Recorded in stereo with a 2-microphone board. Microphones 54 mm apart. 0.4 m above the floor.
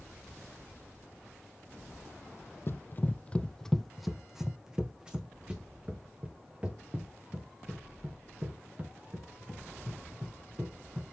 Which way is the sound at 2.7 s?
50° left (ahead or behind).